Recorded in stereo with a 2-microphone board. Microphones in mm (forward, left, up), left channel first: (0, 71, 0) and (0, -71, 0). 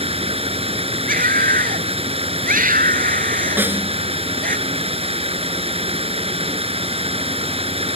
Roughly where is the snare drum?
Centre.